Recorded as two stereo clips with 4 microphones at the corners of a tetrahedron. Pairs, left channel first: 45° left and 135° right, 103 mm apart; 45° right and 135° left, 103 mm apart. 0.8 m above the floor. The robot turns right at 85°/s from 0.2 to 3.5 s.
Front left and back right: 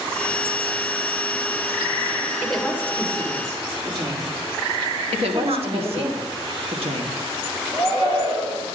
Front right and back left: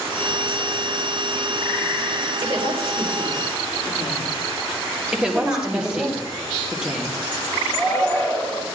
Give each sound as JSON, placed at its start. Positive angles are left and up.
{"t": 2.4, "sound": "a woman speaking", "azimuth_deg": 120, "distance_m": 3.0}
{"t": 5.1, "sound": "a woman speaking", "azimuth_deg": -145, "distance_m": 1.4}
{"t": 7.7, "sound": "a shout", "azimuth_deg": -110, "distance_m": 4.0}